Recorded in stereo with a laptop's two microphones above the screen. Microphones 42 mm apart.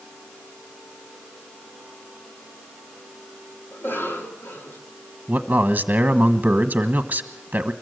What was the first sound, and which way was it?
A cough, 55° left (ahead or behind).